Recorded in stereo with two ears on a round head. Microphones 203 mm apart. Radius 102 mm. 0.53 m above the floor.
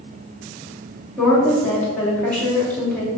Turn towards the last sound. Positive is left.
turn(degrees=5)  # may be behind; listen again after turning